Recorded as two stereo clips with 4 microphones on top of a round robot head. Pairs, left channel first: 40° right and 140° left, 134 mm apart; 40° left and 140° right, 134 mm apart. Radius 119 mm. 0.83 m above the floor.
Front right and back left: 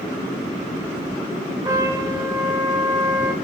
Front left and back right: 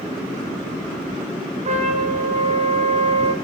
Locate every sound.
1.6 s a trumpet: 160° right, 1.3 m